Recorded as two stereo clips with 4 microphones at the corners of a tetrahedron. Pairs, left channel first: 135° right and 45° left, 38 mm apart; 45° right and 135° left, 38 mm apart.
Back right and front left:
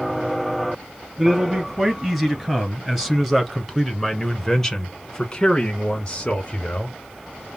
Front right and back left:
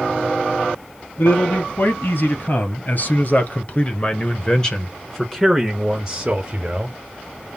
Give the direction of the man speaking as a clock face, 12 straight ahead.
1 o'clock.